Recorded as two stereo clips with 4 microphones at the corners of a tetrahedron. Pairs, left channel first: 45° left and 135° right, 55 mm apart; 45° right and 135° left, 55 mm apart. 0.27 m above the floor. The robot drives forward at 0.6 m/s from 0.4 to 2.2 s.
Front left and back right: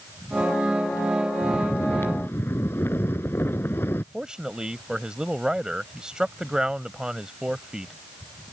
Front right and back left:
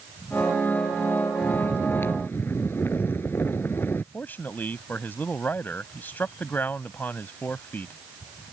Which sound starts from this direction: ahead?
Snoring, at 1.4 s.